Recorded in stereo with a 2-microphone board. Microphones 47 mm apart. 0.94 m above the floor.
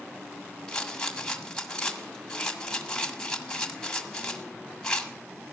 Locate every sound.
0.7 s a rattle: 20° left (ahead or behind), 1.6 m